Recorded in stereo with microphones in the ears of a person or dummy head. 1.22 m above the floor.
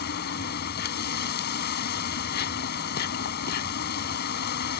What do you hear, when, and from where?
0.0 s an insect: 55° left (ahead or behind)